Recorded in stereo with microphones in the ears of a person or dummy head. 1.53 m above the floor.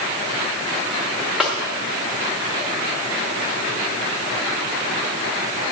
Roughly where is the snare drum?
Centre.